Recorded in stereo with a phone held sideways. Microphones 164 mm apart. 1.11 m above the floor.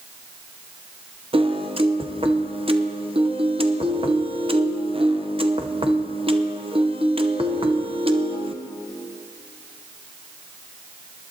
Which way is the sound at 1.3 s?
35° right (ahead or behind).